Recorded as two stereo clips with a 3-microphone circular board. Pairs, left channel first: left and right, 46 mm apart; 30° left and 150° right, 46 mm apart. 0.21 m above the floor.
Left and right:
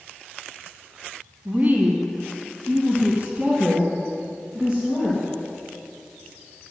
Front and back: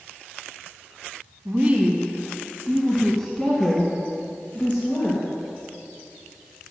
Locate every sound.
1.4 s a woman speaking: 110° right, 1.6 m; by 5.2 s 20° right, 3 m